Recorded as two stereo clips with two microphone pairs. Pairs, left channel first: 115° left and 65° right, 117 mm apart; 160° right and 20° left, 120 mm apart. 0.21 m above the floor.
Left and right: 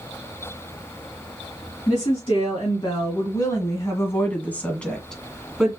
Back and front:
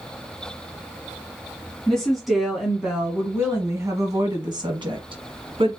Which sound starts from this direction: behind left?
A woman speaking, at 1.9 s.